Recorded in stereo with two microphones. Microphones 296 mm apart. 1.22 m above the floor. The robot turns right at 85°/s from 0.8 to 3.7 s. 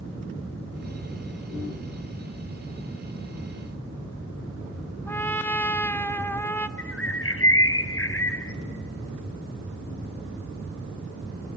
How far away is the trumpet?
About 0.6 m.